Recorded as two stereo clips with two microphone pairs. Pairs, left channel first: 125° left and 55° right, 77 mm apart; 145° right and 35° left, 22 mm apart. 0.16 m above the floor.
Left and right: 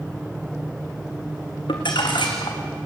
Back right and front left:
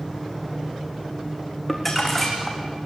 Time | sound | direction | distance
1.7 | crumpling | 135° left | 3.5 m